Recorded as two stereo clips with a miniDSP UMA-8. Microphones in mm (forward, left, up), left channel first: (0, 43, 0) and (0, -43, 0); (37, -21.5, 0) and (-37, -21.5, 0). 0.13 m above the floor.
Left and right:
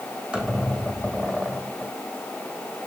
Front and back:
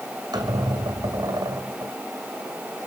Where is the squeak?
165° right, 2.5 m.